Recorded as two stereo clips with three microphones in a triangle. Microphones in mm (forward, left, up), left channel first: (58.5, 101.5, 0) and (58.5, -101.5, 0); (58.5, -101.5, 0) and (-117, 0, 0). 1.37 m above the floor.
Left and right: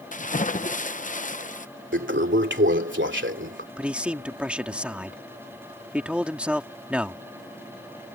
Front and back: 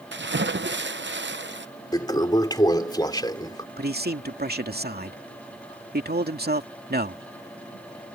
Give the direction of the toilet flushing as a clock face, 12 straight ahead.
3 o'clock.